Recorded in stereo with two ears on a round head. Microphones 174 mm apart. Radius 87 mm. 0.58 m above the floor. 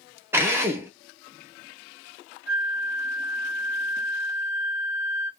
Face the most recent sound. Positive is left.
turn(degrees=5)  # may be behind; listen again after turning